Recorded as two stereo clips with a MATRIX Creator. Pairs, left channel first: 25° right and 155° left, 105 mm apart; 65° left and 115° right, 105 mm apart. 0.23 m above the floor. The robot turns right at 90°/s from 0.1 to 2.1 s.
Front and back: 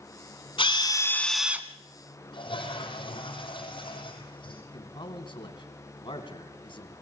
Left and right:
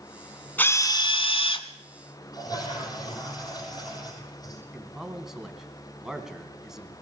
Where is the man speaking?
30° right, 2.5 m.